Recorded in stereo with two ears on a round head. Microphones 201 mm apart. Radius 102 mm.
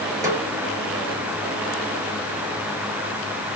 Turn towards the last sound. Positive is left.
turn(degrees=-15)  # may be behind; listen again after turning